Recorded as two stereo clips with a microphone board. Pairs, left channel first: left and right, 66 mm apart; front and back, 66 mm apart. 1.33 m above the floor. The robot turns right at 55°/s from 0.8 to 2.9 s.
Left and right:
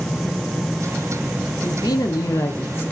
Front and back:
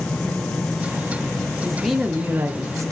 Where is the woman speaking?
80° left, 0.7 m; by 2.9 s 150° left, 0.7 m.